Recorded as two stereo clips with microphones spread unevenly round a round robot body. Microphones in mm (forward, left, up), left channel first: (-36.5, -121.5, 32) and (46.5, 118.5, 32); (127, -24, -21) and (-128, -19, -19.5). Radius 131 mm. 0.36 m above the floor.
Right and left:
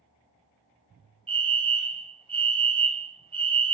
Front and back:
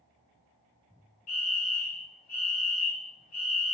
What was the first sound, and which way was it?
A fire alarm, 5° left.